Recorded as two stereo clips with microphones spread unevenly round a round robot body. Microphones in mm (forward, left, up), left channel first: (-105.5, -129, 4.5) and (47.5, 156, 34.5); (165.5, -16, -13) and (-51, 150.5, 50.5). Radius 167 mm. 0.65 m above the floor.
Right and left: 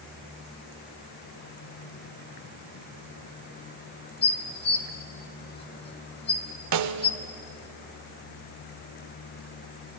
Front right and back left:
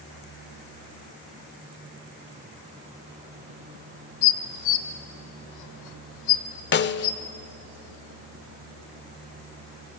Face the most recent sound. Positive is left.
turn(degrees=20)